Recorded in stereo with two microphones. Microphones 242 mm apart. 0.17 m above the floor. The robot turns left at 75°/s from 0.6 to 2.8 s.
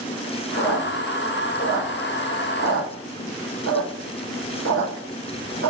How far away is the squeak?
About 1.4 m.